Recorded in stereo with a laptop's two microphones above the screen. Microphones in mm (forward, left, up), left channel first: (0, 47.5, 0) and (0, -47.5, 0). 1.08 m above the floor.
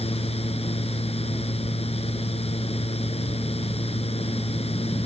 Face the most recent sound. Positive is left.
turn(degrees=90)